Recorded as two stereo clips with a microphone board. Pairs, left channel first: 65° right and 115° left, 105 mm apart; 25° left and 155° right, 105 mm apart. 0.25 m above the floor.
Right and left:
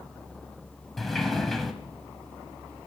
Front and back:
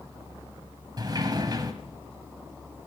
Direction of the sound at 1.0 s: 155° right.